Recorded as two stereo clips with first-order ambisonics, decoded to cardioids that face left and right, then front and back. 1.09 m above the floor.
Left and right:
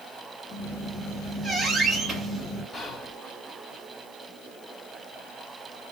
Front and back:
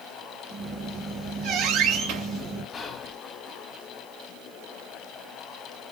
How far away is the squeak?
About 3 m.